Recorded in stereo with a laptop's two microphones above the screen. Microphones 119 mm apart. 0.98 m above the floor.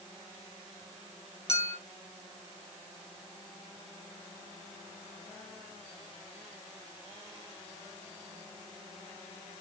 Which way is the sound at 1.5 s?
50° left (ahead or behind).